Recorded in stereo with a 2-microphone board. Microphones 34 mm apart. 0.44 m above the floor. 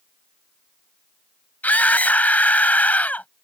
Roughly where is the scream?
Left.